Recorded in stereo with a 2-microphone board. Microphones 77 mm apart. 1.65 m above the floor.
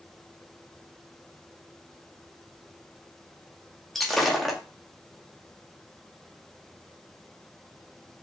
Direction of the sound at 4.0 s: Centre (ahead or behind).